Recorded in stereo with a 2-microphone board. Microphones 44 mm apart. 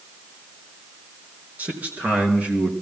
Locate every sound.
1.6 s a man speaking: 40° right (ahead or behind), 4.5 m; by 2.7 s 30° right (ahead or behind), 3.5 m